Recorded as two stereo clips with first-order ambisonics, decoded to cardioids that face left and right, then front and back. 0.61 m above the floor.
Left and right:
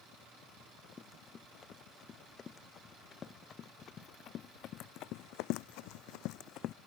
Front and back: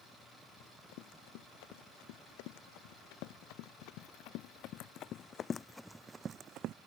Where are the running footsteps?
15° left; by 6.8 s 140° left.